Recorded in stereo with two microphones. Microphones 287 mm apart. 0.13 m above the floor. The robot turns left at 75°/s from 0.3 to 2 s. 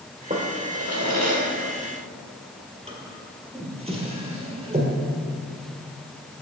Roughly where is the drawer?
Right.